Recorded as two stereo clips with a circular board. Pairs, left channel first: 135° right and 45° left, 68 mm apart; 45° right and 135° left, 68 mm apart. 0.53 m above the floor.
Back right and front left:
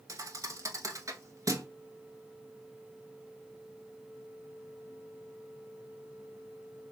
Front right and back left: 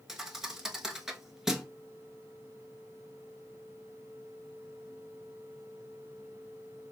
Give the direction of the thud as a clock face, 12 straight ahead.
10 o'clock.